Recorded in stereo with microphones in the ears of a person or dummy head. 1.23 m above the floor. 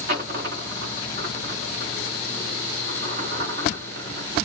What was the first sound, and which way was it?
A dropped coin, 45° right (ahead or behind).